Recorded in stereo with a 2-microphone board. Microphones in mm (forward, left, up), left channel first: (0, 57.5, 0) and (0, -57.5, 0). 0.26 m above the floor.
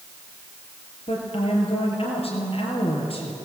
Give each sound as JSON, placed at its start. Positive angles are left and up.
{"t": 1.1, "sound": "a woman speaking", "side_deg": 55, "distance_m": 4.5}